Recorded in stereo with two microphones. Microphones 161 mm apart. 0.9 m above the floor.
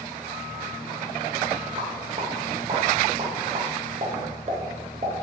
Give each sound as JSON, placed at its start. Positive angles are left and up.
{"t": 1.8, "sound": "a pop", "side_deg": -40, "distance_m": 0.5}